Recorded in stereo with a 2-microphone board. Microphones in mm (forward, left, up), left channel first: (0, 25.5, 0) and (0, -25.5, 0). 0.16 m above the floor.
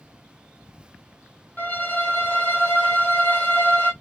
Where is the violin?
35° left (ahead or behind), 1.1 m.